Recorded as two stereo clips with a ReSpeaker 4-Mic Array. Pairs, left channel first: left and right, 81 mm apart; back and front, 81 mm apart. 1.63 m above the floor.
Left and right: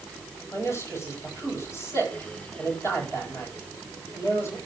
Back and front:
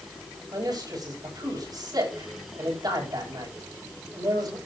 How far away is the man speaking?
About 9 m.